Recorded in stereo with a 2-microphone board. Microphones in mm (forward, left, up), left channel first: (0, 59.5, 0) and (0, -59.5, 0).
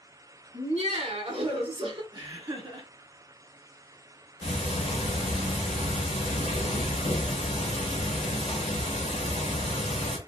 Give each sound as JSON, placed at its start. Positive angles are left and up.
{"t": 0.5, "sound": "laughter", "side_deg": -55, "distance_m": 1.1}
{"t": 2.1, "sound": "laughter", "side_deg": -35, "distance_m": 1.4}
{"t": 4.4, "sound": "ticking", "side_deg": 65, "distance_m": 0.8}